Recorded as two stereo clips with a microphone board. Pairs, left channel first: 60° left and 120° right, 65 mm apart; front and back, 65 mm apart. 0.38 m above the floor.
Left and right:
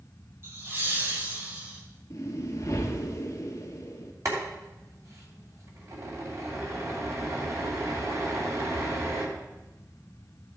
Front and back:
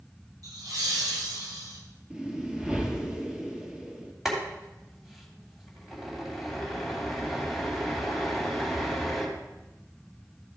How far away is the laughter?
About 2.5 m.